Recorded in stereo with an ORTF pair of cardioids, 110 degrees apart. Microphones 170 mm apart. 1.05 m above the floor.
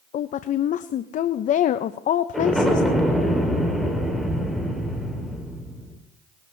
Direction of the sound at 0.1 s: 50° left.